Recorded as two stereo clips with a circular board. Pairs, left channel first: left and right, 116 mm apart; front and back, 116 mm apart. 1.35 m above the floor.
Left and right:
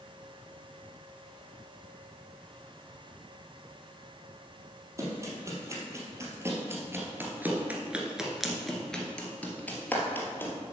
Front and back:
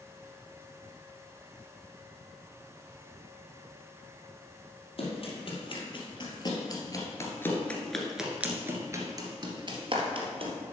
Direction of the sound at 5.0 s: 30° right.